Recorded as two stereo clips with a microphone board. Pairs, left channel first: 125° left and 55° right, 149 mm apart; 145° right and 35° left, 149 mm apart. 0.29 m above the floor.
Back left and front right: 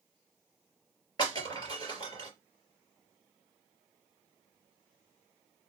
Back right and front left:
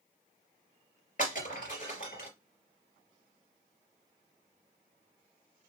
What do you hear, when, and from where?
1.2 s breaking glass: 175° right, 3 m